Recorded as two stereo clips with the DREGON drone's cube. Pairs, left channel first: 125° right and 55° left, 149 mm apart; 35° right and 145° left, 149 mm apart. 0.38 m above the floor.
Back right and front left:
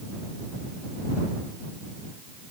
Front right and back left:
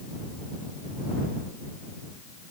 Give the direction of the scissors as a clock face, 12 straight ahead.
No scissors in this recording.